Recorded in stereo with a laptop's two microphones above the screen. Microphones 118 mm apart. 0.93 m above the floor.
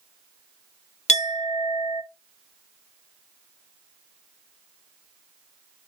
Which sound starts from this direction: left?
A clink, at 1.1 s.